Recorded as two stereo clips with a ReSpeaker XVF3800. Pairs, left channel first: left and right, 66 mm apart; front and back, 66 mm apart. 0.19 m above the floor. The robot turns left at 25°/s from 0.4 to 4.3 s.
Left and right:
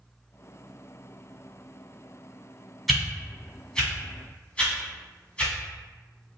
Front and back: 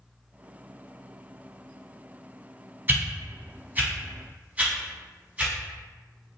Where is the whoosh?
Straight behind, 1.3 m; by 5.5 s 145° left, 1.3 m.